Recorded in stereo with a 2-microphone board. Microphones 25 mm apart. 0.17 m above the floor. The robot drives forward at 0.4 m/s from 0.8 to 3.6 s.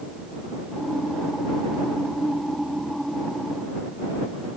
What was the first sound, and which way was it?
Only background noise.